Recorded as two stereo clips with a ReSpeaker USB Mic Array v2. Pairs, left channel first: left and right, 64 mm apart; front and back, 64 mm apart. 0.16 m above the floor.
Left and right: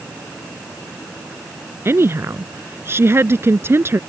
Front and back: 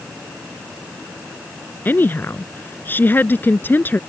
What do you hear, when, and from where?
1.9 s a woman speaking: 50° right